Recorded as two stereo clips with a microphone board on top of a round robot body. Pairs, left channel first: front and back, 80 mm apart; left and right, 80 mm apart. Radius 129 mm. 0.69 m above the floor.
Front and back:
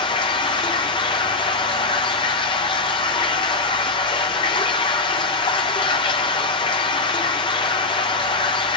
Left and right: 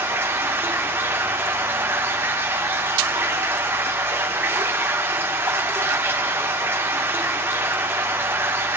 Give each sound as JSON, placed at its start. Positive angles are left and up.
{"t": 0.0, "sound": "running water", "azimuth_deg": -25, "distance_m": 0.7}